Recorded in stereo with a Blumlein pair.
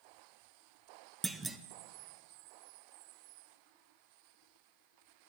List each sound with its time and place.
1.2 s a clunk: 10° right, 1.0 m